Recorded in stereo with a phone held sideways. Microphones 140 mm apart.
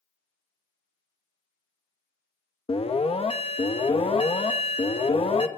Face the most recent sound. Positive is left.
turn(degrees=45)  # may be behind; listen again after turning